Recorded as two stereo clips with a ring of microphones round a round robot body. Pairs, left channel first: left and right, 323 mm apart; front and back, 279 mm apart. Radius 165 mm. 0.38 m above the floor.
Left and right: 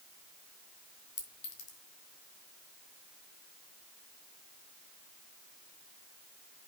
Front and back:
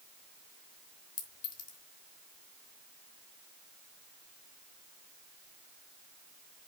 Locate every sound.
1.2 s a clink: 35° left, 3 m